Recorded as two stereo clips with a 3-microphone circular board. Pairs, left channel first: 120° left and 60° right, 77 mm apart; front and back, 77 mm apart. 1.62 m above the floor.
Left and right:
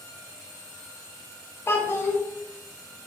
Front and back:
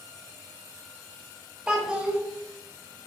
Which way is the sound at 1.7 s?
110° left.